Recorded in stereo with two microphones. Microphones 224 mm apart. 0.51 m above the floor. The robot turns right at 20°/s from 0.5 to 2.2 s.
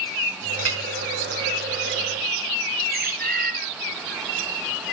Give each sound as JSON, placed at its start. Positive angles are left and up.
{"t": 0.6, "sound": "a clink", "side_deg": -75, "distance_m": 1.8}
{"t": 2.9, "sound": "a bird", "side_deg": -45, "distance_m": 1.8}